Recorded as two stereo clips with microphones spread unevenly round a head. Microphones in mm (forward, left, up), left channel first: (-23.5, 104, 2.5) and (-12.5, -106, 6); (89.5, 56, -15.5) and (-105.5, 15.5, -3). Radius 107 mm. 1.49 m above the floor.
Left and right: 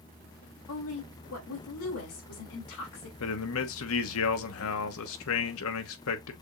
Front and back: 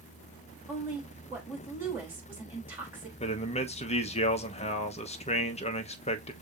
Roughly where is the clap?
No clap in this recording.